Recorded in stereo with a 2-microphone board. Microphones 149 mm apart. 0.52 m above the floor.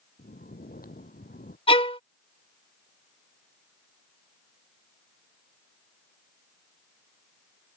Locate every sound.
0.2 s snoring: 85° left
1.7 s a violin: 40° left (ahead or behind)